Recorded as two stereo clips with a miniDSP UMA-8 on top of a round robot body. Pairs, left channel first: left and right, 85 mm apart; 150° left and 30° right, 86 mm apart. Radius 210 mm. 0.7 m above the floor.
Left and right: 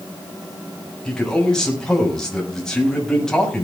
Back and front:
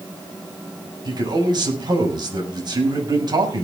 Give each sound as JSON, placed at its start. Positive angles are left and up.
{"t": 1.1, "sound": "a man speaking", "azimuth_deg": 5, "distance_m": 6.5}